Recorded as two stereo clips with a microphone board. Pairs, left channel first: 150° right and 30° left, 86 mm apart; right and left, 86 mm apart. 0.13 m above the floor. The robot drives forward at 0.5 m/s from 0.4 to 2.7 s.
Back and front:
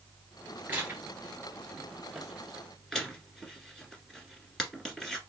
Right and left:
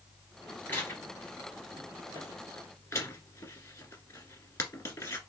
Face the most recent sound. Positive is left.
turn(degrees=-65)